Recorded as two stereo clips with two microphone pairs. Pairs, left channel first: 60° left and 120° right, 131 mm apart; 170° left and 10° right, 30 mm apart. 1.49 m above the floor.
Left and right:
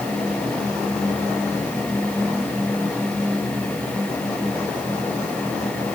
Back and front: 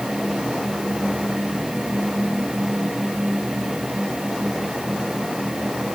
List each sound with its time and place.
Only background noise.